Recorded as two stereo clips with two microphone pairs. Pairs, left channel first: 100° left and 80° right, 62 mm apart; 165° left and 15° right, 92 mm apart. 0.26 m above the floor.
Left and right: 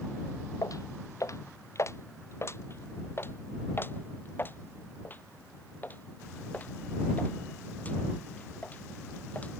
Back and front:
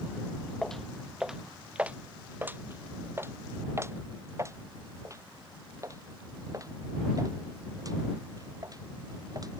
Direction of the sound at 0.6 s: 80° left.